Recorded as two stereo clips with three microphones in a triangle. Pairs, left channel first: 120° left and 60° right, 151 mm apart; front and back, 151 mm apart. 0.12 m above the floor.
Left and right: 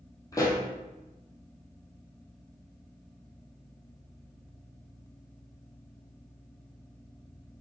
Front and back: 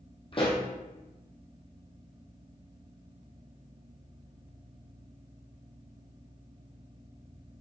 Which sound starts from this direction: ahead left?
A pop, at 0.3 s.